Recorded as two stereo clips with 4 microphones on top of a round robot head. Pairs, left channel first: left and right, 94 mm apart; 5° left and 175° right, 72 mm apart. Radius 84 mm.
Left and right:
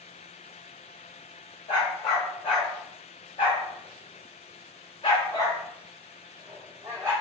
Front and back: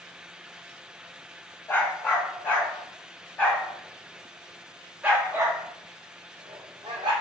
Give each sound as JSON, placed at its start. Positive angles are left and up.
{"t": 1.7, "sound": "a dog barking", "azimuth_deg": 60, "distance_m": 2.0}